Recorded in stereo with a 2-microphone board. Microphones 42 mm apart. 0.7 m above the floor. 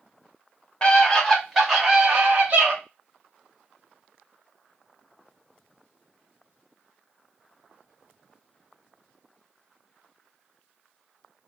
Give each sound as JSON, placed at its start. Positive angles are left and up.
{"t": 0.8, "sound": "a scream", "side_deg": 30, "distance_m": 1.0}